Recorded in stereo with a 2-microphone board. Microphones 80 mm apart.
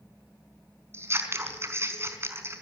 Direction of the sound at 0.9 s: 30° right (ahead or behind).